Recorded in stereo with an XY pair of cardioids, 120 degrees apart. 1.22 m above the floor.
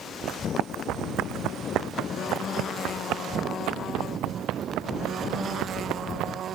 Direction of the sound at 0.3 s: 70° right.